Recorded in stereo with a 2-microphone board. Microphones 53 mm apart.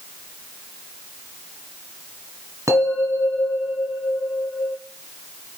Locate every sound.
2.7 s a bell: 70° right (ahead or behind), 2.5 m